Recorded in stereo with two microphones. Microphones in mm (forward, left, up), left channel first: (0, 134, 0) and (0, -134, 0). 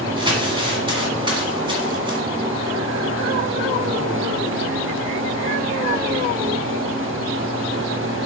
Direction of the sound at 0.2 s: 20° right (ahead or behind).